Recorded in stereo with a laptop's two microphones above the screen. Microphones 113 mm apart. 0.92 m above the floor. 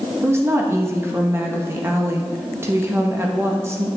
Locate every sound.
0.2 s a woman speaking: 25° right (ahead or behind), 0.9 m